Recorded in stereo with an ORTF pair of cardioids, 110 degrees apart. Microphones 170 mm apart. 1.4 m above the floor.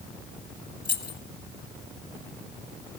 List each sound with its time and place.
0.8 s keys jangling: 25° left, 1.4 m